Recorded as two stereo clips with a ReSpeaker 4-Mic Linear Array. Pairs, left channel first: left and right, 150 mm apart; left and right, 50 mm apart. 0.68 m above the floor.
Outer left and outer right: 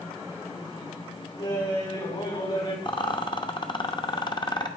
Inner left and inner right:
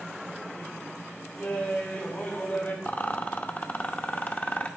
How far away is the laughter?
About 5.5 m.